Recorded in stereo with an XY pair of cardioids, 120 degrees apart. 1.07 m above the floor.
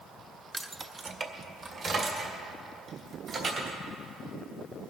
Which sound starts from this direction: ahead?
Keys jangling, at 0.5 s.